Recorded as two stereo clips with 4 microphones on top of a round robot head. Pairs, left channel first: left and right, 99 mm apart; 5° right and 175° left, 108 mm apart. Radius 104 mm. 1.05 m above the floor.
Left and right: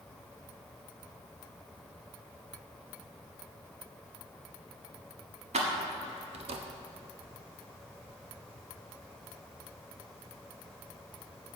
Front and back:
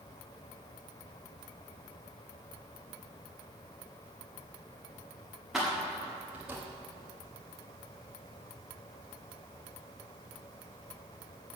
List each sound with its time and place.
5.5 s keys jangling: 95° right, 1.5 m; by 6.6 s 110° right, 0.9 m